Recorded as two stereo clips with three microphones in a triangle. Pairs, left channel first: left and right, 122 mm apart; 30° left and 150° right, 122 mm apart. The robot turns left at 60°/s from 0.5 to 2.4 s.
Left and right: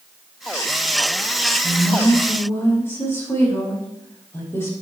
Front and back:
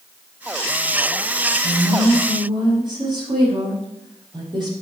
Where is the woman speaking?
155° right, 5.5 m; by 4.7 s 160° left, 5.5 m.